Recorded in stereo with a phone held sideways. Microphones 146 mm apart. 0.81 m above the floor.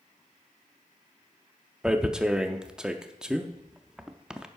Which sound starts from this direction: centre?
Tearing paper, at 1.8 s.